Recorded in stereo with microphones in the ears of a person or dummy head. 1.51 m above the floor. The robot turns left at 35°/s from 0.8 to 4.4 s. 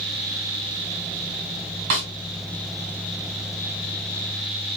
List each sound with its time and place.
1.9 s a snare drum: 40° right (ahead or behind), 1.6 m